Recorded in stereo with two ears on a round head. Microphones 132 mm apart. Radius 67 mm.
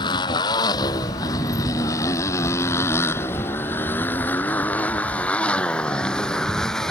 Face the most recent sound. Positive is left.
turn(degrees=5)  # may be behind; listen again after turning